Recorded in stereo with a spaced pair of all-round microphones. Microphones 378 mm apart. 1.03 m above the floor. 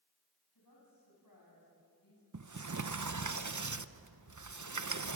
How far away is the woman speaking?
About 10 m.